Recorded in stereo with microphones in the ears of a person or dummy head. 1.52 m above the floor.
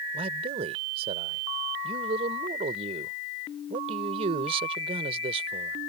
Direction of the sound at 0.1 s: 40° right (ahead or behind).